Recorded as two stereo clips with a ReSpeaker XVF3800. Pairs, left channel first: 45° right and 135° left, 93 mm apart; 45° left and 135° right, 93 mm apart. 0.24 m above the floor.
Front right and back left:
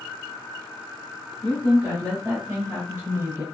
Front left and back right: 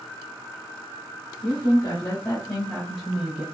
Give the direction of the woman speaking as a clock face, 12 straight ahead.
10 o'clock.